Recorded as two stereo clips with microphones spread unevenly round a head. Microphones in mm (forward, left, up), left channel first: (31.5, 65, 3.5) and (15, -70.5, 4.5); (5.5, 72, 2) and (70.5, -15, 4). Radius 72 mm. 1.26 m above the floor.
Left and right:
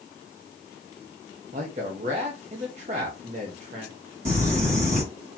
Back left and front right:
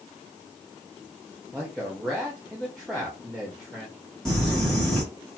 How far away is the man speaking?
About 0.7 m.